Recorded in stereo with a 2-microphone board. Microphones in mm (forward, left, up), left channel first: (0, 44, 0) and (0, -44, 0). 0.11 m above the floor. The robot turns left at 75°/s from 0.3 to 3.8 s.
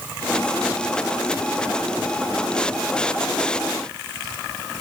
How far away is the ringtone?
No ringtone in this recording.